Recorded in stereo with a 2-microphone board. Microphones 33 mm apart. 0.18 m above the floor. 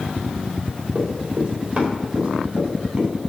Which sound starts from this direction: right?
Running footsteps, at 0.9 s.